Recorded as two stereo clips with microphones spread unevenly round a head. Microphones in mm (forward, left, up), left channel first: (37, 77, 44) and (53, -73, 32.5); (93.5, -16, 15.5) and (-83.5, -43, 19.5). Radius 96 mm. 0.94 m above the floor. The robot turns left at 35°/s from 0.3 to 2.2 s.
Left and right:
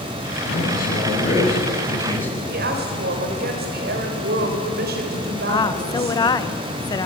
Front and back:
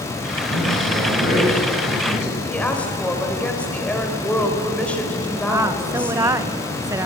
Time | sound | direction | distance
0.4 | a man speaking | 80° left | 7 m
2.5 | a woman speaking | 75° right | 4 m
5.5 | a woman speaking | 130° left | 0.9 m